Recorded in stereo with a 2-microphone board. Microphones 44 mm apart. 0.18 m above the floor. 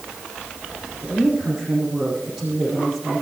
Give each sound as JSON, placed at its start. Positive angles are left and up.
{"t": 1.0, "sound": "a woman speaking", "side_deg": 0, "distance_m": 8.5}